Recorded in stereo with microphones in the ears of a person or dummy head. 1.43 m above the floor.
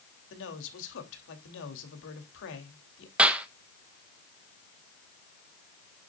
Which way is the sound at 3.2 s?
10° right (ahead or behind).